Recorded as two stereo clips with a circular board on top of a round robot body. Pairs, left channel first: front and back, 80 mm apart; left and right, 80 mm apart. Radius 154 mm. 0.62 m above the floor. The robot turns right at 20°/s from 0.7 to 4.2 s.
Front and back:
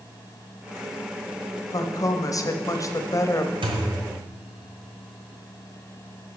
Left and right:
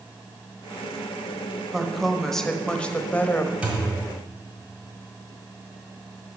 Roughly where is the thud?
Behind.